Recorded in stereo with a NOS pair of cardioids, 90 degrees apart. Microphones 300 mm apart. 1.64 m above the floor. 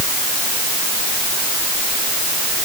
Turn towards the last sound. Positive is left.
No sound to turn to.